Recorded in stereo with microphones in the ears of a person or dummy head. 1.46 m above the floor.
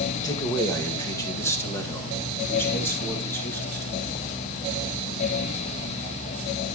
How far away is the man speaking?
About 1.7 m.